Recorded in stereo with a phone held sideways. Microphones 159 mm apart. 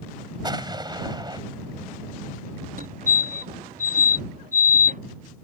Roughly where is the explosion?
Right.